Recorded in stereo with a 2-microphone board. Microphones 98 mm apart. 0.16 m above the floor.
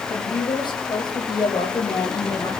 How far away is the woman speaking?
About 7 m.